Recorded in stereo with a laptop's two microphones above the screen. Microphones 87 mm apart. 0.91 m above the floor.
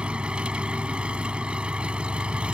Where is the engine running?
10° right (ahead or behind).